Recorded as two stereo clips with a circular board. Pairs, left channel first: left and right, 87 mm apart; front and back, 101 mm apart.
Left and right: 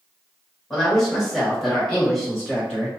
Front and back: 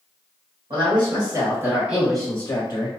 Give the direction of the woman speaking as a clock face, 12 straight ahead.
6 o'clock.